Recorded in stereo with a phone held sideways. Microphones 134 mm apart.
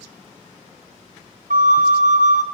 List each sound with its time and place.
1.5 s a flute: 80° right, 0.6 m